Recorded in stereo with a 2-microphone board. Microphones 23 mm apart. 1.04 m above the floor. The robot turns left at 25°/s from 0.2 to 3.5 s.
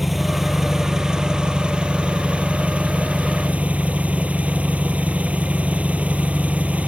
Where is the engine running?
10° right; by 6.9 s 90° right.